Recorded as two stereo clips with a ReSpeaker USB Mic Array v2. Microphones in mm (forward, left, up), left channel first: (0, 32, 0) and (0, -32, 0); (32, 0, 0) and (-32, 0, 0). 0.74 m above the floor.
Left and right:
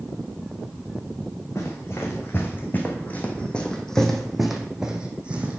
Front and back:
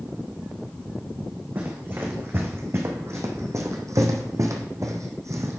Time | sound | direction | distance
1.6 | running footsteps | 125° left | 2.0 m